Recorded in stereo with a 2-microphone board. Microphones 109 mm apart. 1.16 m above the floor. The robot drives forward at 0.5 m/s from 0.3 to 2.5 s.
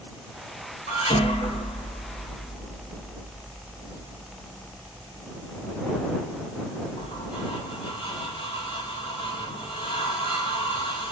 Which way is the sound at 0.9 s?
65° left (ahead or behind).